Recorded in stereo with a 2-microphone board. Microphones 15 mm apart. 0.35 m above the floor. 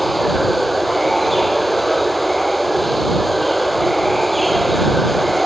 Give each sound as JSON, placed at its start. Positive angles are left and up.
{"t": 0.0, "sound": "running water", "side_deg": 0}